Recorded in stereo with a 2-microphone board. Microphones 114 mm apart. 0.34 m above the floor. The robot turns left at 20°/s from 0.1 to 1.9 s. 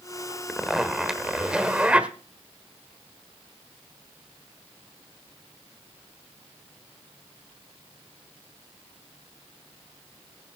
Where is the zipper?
Centre (ahead or behind), 1.3 m; by 2.1 s 10° right (ahead or behind), 1.3 m.